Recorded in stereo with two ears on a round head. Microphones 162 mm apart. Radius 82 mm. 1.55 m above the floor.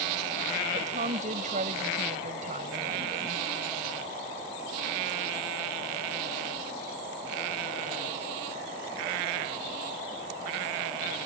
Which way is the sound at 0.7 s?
45° right (ahead or behind).